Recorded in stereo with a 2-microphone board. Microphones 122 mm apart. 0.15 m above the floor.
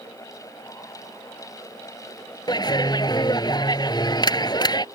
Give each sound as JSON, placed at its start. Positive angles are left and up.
{"t": 2.5, "sound": "a clap", "side_deg": 35}